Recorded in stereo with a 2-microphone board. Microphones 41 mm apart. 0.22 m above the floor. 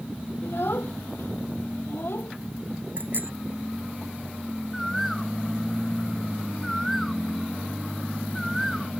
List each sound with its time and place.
0.4 s a child speaking: 65° left (ahead or behind); by 2.3 s 75° left (ahead or behind)
3.0 s a bicycle bell: 50° right (ahead or behind)
4.7 s a bird: centre (ahead or behind)